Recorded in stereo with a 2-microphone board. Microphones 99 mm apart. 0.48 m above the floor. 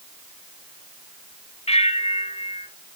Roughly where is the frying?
I don't hear frying.